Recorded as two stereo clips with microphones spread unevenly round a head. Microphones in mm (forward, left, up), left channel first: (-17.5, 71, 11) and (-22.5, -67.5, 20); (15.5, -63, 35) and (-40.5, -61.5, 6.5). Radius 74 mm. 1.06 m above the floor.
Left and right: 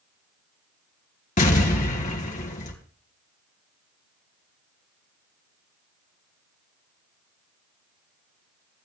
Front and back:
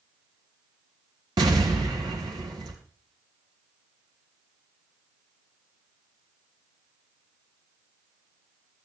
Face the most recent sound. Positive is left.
turn(degrees=125)